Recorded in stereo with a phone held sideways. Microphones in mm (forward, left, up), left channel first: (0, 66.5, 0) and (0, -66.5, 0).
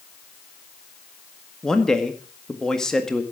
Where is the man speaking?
5° left (ahead or behind), 1.7 m.